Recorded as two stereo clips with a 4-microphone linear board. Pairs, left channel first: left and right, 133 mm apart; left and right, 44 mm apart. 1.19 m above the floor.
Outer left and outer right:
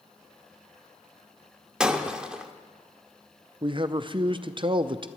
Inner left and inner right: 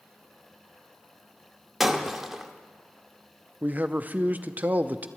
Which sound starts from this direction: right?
A man speaking, at 3.6 s.